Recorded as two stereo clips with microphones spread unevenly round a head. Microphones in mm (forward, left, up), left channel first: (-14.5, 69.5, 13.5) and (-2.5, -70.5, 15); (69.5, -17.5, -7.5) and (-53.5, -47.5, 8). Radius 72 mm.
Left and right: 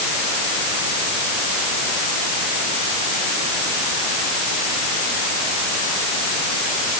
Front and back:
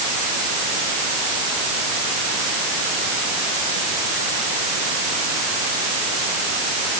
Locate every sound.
Only background noise.